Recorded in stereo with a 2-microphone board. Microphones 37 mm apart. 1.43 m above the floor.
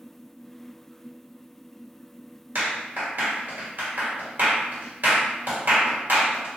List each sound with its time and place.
2.5 s a clap: 70° right (ahead or behind), 1.5 m